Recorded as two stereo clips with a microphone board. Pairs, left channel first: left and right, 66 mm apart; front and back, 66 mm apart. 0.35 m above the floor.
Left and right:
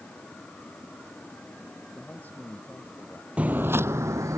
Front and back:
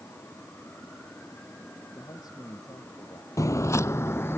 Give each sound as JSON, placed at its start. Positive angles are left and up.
{"t": 1.9, "sound": "a man speaking", "azimuth_deg": 25}
{"t": 3.4, "sound": "footsteps", "azimuth_deg": -20}